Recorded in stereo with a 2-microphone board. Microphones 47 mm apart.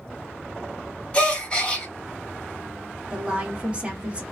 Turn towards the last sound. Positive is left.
turn(degrees=-25)  # may be behind; listen again after turning